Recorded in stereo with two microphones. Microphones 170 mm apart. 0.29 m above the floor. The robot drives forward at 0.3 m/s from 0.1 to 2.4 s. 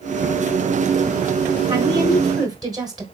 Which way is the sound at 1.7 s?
25° right (ahead or behind).